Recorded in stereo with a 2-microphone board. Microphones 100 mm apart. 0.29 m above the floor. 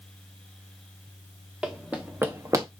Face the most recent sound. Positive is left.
turn(degrees=-35)  # may be behind; listen again after turning